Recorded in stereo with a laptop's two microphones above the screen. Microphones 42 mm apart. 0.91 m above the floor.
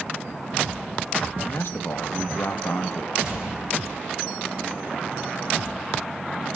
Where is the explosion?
10° right (ahead or behind), 3 m.